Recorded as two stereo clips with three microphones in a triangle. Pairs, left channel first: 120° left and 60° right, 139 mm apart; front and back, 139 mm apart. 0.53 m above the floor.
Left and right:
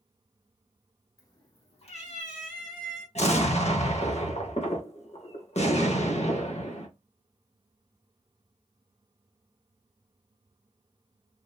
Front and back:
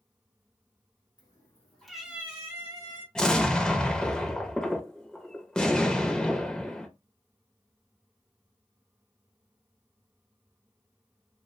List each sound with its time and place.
1.2 s a cat meowing: 55° left, 0.9 m; by 3.0 s 120° left, 1.4 m
3.1 s an explosion: 85° left, 0.6 m